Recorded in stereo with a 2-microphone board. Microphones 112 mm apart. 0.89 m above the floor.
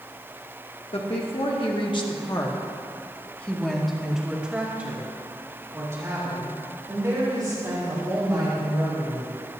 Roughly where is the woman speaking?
Left.